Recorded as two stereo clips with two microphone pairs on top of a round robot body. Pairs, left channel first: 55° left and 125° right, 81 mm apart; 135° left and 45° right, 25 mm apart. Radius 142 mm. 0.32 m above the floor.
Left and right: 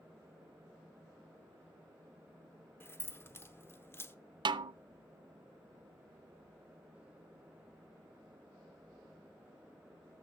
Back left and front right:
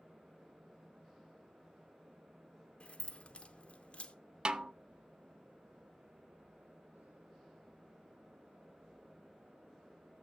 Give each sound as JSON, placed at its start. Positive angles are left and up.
{"t": 2.8, "sound": "keys jangling", "azimuth_deg": 115, "distance_m": 0.9}
{"t": 4.5, "sound": "a snare drum", "azimuth_deg": -100, "distance_m": 0.5}